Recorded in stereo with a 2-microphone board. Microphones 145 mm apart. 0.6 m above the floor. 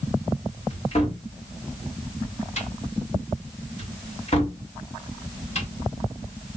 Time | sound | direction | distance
0.7 | a cupboard door | 45° left (ahead or behind) | 1.6 m